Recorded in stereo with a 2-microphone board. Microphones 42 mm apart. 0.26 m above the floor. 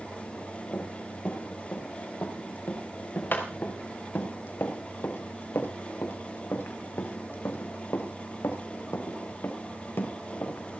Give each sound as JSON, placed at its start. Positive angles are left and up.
{"t": 0.7, "sound": "running footsteps", "side_deg": 40, "distance_m": 5.5}